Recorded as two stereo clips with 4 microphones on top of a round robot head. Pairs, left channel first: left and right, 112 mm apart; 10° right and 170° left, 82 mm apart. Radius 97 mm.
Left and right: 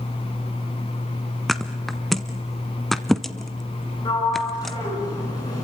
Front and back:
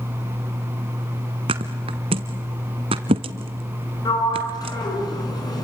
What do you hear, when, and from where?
1.5 s a thud: straight behind, 1.1 m
4.0 s a sliding door: 30° left, 9 m